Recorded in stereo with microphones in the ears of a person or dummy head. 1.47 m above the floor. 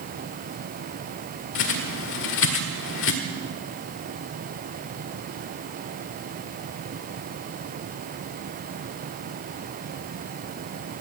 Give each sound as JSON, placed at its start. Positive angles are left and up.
{"t": 1.6, "sound": "a bird", "side_deg": 65, "distance_m": 2.0}